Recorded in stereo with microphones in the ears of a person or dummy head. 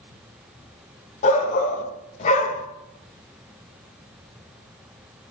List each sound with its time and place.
1.2 s a shout: 40° left (ahead or behind), 2 m